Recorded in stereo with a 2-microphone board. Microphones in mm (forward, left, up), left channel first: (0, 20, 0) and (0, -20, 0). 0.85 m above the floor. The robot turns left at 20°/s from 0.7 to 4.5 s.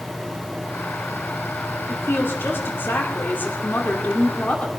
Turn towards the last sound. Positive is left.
turn(degrees=40)